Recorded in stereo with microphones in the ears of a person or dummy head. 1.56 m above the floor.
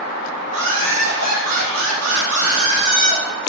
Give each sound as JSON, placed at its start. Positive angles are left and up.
{"t": 0.5, "sound": "laughter", "side_deg": -80, "distance_m": 1.9}